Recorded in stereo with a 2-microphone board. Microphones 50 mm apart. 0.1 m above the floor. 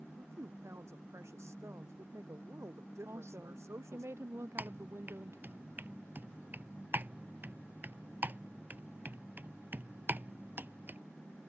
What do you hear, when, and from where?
0.2 s a woman speaking: 65° right (ahead or behind)
3.0 s a woman speaking: 60° right (ahead or behind)
4.6 s typing on a keyboard: 40° right (ahead or behind)